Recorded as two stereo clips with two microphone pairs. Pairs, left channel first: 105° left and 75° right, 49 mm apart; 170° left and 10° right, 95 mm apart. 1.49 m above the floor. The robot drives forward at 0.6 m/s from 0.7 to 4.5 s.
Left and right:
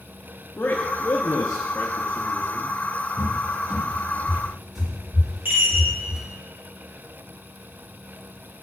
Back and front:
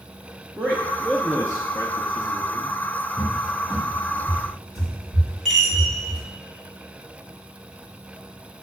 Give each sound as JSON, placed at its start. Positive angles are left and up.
{"t": 0.6, "sound": "a man speaking", "azimuth_deg": 50, "distance_m": 0.6}
{"t": 3.2, "sound": "a cupboard door", "azimuth_deg": -140, "distance_m": 1.5}
{"t": 5.5, "sound": "a chime", "azimuth_deg": -105, "distance_m": 2.5}